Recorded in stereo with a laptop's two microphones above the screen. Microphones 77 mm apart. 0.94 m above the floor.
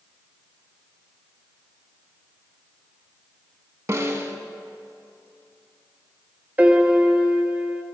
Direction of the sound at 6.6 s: 20° right (ahead or behind).